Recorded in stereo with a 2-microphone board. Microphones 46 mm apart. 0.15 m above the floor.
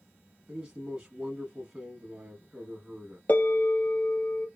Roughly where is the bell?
Left.